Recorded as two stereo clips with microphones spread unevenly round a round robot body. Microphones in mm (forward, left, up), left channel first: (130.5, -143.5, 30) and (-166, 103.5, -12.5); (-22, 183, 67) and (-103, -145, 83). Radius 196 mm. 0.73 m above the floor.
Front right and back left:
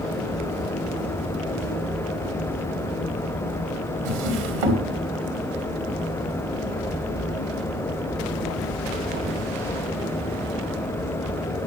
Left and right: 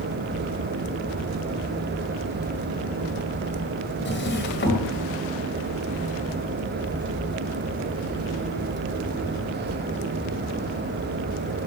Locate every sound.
4.0 s a drawer: 135° left, 2 m